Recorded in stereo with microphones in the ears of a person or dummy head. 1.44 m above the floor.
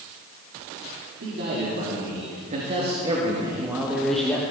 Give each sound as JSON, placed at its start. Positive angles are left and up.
{"t": 1.2, "sound": "a man speaking", "side_deg": -55, "distance_m": 4.0}